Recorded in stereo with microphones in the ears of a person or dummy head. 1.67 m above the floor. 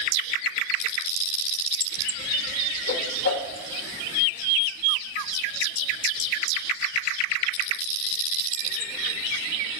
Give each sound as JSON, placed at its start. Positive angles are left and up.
{"t": 2.9, "sound": "a whoosh", "side_deg": 65, "distance_m": 0.9}